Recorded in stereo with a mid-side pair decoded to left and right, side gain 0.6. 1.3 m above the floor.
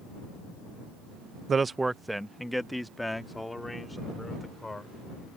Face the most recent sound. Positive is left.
turn(degrees=10)